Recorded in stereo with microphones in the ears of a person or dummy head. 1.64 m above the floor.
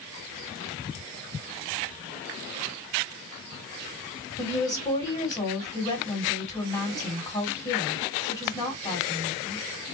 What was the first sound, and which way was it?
A woman speaking, 20° left (ahead or behind).